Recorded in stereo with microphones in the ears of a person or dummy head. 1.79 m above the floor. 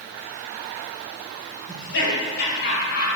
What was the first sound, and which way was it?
Laughter, 70° left (ahead or behind).